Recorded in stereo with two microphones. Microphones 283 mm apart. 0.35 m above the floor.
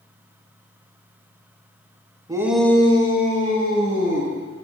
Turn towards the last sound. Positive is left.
turn(degrees=60)  # may be behind; listen again after turning